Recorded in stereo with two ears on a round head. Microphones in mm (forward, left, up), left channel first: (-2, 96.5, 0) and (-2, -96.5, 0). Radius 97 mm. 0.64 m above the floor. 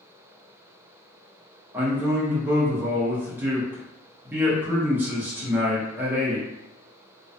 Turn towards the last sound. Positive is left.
turn(degrees=-10)  # may be behind; listen again after turning